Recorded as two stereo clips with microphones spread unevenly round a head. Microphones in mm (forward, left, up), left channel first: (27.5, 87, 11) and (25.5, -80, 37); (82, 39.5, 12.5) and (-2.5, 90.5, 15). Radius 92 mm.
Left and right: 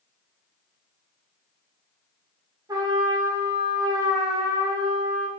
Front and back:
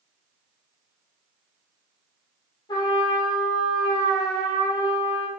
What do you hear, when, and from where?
2.7 s a trumpet: 55° right, 0.9 m